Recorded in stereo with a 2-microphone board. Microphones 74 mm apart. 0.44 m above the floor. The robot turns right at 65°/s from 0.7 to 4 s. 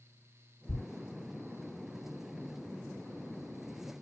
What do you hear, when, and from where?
0.7 s a thud: 50° left (ahead or behind), 0.8 m; by 0.8 s 55° left (ahead or behind), 0.8 m